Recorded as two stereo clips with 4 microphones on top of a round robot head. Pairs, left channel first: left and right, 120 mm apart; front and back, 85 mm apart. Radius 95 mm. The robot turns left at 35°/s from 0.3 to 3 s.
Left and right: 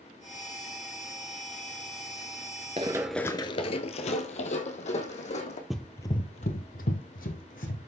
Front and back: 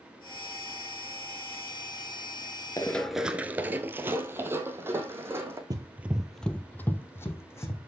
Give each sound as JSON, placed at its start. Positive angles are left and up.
{"t": 2.8, "sound": "running footsteps", "azimuth_deg": -55, "distance_m": 0.5}
{"t": 5.7, "sound": "running footsteps", "azimuth_deg": 180, "distance_m": 0.6}